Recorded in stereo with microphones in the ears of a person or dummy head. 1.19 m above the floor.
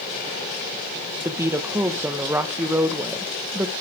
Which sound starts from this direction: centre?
A woman speaking, at 1.2 s.